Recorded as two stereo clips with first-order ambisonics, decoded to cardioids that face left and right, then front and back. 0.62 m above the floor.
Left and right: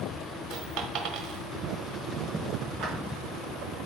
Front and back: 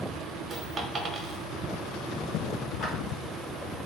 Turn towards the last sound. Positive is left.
turn(degrees=-55)